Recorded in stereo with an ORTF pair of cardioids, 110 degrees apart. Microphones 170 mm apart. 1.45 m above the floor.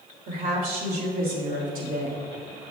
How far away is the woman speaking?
About 3 m.